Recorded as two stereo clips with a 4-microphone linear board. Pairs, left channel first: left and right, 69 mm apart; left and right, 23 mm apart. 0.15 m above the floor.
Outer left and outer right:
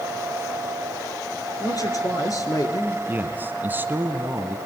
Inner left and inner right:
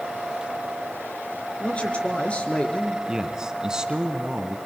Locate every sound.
1.6 s a man speaking: 55° left (ahead or behind), 3 m
3.1 s a man speaking: 30° right (ahead or behind), 1.7 m